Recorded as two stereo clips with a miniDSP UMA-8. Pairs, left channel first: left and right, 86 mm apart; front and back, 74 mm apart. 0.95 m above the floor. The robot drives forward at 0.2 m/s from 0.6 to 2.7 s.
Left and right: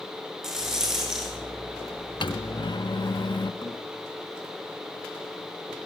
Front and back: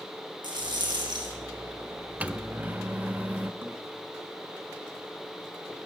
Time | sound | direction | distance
0.4 | a rattle | 175° right | 8.5 m
2.2 | a microwave | 105° left | 1.0 m
3.6 | a thud | 120° left | 5.5 m